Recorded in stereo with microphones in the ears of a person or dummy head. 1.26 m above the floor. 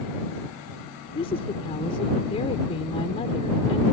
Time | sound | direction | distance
1.1 | a woman speaking | 30° left (ahead or behind) | ?